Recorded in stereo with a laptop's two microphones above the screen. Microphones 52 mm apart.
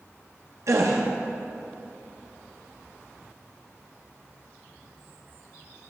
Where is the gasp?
70° right (ahead or behind), 0.6 m.